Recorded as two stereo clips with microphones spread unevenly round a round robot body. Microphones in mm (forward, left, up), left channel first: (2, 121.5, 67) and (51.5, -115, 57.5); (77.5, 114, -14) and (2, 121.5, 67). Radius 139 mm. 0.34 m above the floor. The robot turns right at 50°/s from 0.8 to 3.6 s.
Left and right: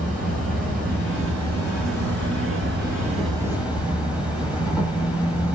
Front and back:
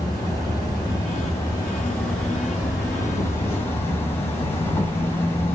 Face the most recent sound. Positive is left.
turn(degrees=5)